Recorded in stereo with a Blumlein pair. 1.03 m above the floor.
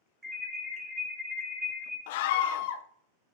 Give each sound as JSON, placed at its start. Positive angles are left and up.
{"t": 0.2, "sound": "an alarm", "azimuth_deg": -15, "distance_m": 2.5}
{"t": 2.1, "sound": "a scream", "azimuth_deg": 50, "distance_m": 0.5}